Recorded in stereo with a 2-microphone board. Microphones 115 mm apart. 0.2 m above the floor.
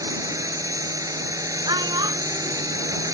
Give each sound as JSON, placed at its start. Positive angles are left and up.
{"t": 0.0, "sound": "a drone", "side_deg": -30}
{"t": 1.6, "sound": "a child speaking", "side_deg": -40}